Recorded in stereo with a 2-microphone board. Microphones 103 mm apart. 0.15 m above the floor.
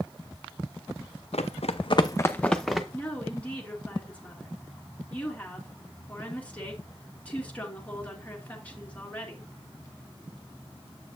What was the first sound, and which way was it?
Running footsteps, 80° left.